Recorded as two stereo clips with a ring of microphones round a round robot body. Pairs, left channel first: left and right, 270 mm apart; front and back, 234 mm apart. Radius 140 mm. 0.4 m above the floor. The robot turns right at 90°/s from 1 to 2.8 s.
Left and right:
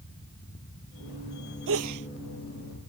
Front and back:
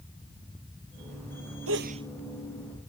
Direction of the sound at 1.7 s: 140° right.